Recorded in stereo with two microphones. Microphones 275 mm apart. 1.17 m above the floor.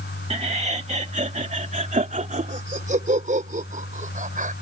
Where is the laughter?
25° right (ahead or behind); by 4.5 s 30° right (ahead or behind).